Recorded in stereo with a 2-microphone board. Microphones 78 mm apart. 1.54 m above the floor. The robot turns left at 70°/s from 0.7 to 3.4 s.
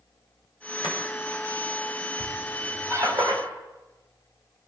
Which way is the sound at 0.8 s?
60° left (ahead or behind).